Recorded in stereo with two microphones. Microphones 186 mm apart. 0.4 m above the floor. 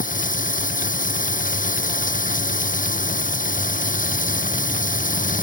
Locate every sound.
0.0 s running water: 45° left (ahead or behind)